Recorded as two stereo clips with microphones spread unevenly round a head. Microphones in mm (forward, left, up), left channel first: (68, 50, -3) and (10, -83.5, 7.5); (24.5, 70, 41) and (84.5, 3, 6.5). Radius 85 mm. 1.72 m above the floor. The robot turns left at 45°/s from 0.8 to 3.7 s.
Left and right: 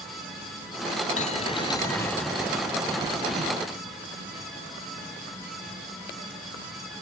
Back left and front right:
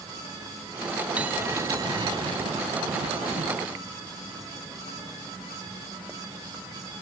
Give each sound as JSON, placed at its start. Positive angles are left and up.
{"t": 1.2, "sound": "a bell", "azimuth_deg": 30}